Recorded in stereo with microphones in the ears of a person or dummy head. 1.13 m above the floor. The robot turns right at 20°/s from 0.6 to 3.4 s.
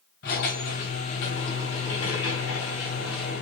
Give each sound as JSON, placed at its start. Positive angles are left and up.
{"t": 0.2, "sound": "a squeak", "azimuth_deg": 65, "distance_m": 2.5}